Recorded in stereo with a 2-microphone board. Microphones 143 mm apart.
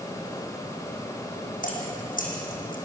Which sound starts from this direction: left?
Dripping, at 1.6 s.